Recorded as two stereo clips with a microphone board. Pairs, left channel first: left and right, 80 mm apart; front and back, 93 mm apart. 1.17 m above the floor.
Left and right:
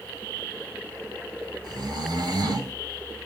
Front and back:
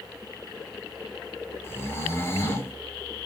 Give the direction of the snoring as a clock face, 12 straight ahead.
2 o'clock.